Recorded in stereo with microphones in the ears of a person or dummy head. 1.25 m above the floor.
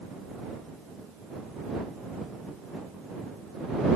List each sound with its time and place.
Only background noise.